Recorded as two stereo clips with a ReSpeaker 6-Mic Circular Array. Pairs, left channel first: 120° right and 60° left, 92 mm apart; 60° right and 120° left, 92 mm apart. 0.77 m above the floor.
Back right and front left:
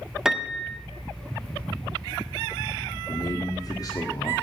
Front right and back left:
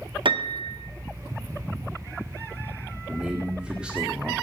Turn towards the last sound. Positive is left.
turn(degrees=-160)